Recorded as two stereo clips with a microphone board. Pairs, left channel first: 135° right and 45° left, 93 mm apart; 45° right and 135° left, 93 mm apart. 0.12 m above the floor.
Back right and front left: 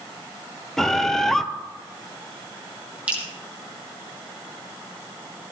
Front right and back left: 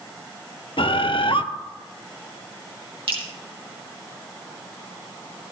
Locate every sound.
0.8 s a bird: 50° right, 0.6 m
3.1 s dripping: 120° left, 2.5 m